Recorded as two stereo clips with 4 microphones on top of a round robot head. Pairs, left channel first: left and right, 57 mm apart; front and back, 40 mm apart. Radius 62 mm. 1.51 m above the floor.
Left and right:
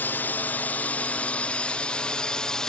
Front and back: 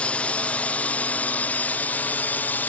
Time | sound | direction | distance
0.0 | a drone | 40° left | ?